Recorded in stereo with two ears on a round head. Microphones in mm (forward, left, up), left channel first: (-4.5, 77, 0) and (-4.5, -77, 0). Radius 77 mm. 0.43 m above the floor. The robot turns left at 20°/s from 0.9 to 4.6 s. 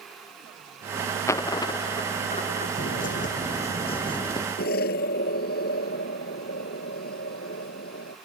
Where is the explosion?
60° left (ahead or behind).